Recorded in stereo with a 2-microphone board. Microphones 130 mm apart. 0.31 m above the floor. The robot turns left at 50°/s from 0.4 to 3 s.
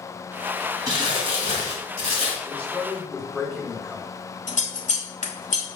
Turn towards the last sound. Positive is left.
turn(degrees=85)